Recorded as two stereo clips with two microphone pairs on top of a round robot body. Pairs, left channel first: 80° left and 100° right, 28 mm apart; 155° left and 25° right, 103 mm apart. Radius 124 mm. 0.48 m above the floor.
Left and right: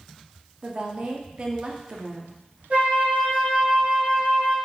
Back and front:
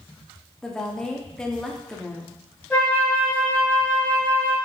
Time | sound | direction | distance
0.6 | a woman speaking | 125° right | 1.3 m
2.7 | a flute | 130° right | 3.5 m